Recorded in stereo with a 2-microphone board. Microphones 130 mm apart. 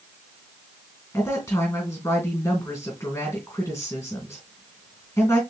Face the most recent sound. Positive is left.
turn(degrees=20)  # may be behind; listen again after turning